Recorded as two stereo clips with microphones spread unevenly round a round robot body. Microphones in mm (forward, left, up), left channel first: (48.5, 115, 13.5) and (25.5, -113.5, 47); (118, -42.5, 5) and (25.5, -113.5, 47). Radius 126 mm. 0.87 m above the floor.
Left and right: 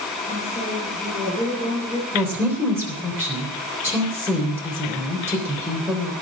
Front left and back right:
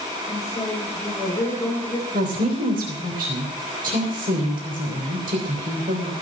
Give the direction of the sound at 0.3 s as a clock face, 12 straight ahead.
1 o'clock.